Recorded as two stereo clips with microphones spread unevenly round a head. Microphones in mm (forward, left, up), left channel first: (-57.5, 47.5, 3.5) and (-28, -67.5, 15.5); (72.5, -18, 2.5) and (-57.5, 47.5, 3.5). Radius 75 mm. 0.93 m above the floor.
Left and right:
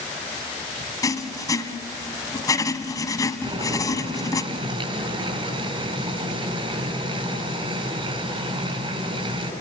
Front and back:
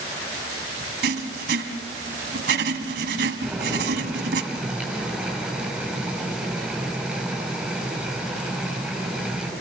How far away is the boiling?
About 6.5 m.